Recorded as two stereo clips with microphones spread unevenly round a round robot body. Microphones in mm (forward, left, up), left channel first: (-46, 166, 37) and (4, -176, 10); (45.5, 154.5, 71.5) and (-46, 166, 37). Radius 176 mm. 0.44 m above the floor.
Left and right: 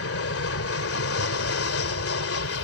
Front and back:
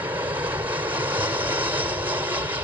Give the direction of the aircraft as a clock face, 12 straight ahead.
7 o'clock.